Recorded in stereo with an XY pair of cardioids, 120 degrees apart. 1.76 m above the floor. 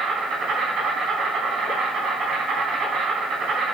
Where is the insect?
50° right, 5 m.